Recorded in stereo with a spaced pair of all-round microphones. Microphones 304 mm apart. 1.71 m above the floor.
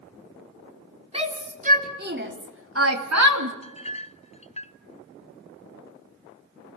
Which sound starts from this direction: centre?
A shout, at 1.1 s.